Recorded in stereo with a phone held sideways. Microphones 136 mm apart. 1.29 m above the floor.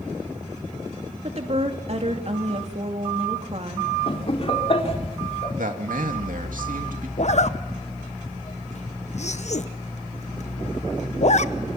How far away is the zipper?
About 0.8 m.